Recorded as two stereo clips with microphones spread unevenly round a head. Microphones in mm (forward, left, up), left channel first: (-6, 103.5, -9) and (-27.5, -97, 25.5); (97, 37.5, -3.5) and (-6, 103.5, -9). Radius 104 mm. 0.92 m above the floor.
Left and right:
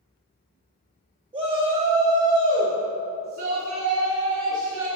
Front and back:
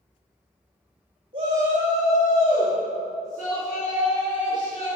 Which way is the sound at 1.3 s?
160° right.